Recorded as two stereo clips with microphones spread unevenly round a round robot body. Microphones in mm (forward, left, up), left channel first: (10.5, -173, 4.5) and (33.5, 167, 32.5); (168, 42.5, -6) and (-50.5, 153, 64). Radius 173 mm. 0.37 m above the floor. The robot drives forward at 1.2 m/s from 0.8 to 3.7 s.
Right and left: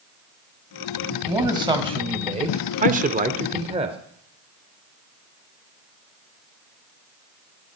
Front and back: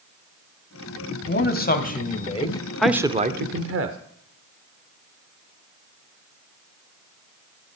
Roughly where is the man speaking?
Ahead.